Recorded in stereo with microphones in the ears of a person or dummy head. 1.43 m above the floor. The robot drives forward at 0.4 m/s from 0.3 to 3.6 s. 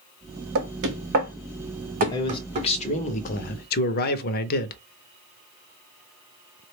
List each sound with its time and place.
0.6 s knocking: 65° right (ahead or behind), 0.8 m; by 2.7 s 35° right (ahead or behind), 1.3 m
2.1 s a man speaking: 20° left (ahead or behind), 1.0 m; by 4.8 s 45° left (ahead or behind), 0.5 m